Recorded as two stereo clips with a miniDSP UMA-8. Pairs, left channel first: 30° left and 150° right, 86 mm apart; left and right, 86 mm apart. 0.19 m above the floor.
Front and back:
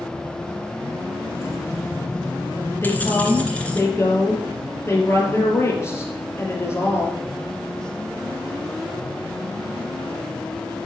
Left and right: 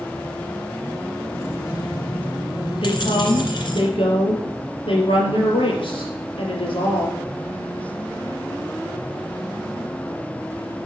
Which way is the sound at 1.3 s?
65° left.